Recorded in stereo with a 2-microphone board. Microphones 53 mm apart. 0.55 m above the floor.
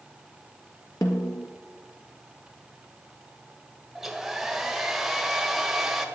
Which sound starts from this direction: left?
A snare drum, at 1.0 s.